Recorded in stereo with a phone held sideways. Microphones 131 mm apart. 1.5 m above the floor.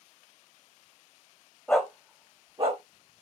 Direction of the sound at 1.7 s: 10° left (ahead or behind).